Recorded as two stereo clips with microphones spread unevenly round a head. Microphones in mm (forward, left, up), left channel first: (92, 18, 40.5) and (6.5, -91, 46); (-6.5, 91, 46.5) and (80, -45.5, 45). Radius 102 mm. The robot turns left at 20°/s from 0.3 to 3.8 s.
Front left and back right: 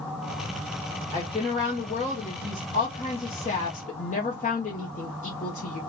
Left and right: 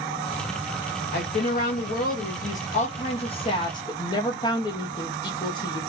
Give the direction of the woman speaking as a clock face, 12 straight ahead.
8 o'clock.